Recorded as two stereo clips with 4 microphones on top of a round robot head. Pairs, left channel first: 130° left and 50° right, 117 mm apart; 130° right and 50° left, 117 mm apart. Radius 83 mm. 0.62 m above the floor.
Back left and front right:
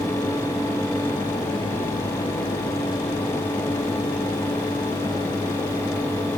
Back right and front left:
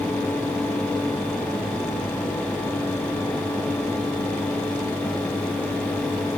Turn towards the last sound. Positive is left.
No sound to turn to.